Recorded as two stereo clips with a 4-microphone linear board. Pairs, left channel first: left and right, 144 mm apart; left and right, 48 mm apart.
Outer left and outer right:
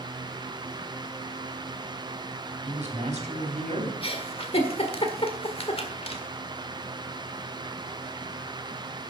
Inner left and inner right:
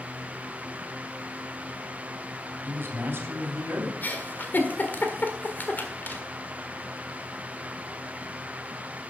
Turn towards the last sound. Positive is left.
turn(degrees=45)  # may be behind; listen again after turning